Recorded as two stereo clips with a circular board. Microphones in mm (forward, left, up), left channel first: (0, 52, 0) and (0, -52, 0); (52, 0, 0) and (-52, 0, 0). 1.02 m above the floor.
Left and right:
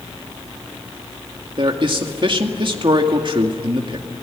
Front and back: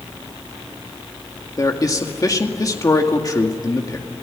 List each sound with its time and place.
1.6 s a man speaking: 55° right, 2 m